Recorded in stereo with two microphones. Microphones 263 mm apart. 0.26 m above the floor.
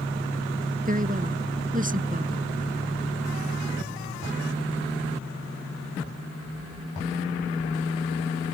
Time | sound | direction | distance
0.8 | a woman speaking | 30° right (ahead or behind) | ?